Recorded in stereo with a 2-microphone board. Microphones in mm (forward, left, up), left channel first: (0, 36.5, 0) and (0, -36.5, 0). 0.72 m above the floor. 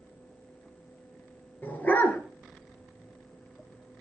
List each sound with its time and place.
1.6 s a dog barking: 25° left (ahead or behind), 3 m